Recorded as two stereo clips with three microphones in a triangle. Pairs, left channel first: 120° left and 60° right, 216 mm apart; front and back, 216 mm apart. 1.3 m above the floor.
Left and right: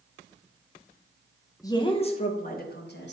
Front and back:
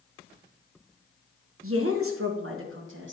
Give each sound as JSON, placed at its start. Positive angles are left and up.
{"t": 1.6, "sound": "a woman speaking", "azimuth_deg": -165, "distance_m": 1.0}